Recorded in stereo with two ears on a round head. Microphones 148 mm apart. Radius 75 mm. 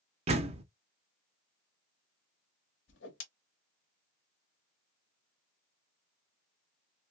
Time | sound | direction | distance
0.3 | a door slam | 40° right (ahead or behind) | 0.6 m
2.9 | a whoosh | 85° left | 1.1 m